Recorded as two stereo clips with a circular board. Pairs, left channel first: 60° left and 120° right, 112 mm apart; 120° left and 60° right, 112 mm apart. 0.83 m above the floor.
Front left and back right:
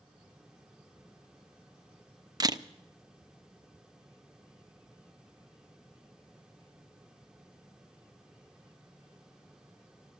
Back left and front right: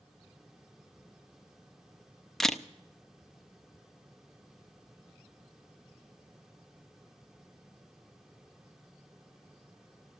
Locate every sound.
2.4 s a camera shutter: 155° right, 0.5 m